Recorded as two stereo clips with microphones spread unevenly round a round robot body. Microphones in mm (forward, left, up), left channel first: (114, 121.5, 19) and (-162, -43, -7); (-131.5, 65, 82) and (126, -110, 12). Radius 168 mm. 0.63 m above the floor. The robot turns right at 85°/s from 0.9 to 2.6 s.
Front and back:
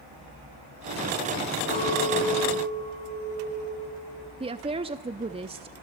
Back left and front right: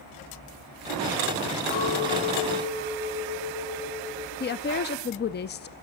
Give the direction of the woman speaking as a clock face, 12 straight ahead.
6 o'clock.